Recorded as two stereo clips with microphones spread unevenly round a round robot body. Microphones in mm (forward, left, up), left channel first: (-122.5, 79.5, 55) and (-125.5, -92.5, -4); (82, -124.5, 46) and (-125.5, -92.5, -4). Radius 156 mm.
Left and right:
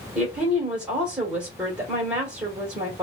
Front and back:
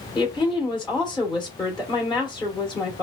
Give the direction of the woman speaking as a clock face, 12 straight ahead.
3 o'clock.